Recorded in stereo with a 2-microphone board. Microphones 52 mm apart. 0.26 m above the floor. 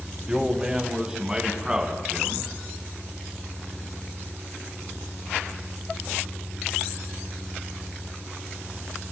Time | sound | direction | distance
0.3 | a man speaking | 15° right (ahead or behind) | 1.7 m